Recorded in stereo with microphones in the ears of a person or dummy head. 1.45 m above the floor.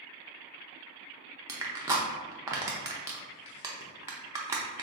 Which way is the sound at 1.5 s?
15° right (ahead or behind).